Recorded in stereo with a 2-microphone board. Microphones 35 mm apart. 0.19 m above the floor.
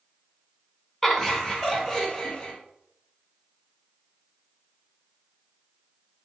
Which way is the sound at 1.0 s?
10° left (ahead or behind).